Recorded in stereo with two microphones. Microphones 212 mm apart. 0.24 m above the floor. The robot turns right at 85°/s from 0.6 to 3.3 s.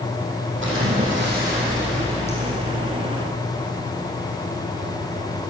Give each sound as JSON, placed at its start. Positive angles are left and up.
{"t": 0.6, "sound": "a splash", "azimuth_deg": -115, "distance_m": 5.0}